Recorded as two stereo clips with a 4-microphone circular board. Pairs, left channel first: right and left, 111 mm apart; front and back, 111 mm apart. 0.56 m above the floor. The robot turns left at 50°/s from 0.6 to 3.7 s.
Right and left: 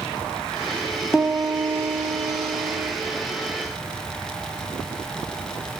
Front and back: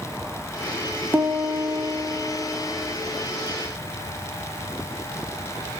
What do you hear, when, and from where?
1.1 s a piano: 165° left, 0.5 m; by 2.9 s 75° left, 0.5 m